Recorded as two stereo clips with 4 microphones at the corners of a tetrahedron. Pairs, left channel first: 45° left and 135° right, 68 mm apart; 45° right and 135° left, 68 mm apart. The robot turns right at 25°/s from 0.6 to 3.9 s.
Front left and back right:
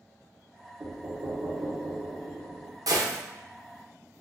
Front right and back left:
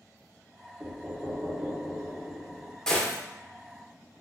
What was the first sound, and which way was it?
Knocking, 150° right.